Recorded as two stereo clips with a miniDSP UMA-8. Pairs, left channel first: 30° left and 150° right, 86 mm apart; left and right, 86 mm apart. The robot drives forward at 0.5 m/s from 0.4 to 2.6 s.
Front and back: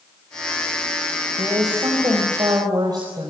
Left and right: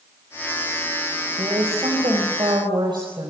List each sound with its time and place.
1.4 s a woman speaking: 105° right, 4.5 m; by 3.3 s 115° right, 4.5 m